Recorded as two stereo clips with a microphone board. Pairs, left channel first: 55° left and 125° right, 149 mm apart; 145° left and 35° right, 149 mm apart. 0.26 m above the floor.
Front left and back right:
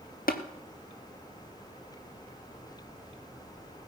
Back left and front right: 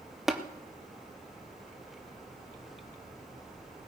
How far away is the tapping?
About 1.2 m.